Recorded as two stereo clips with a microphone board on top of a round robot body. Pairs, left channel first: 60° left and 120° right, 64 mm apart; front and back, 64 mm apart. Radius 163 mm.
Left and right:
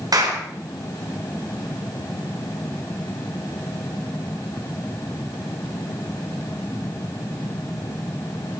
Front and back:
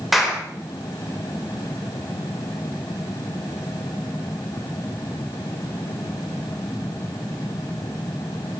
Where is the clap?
90° right, 4.5 m.